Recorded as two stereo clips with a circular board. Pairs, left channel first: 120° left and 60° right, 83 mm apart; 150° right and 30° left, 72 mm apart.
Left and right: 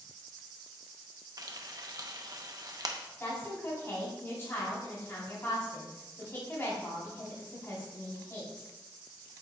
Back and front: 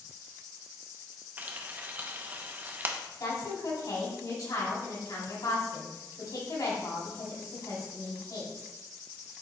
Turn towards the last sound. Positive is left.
turn(degrees=180)